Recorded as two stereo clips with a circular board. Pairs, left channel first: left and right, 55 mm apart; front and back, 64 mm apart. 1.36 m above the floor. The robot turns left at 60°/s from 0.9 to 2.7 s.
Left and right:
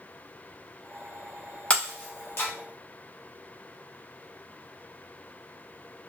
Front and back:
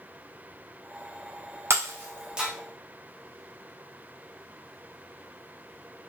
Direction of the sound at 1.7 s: 150° left.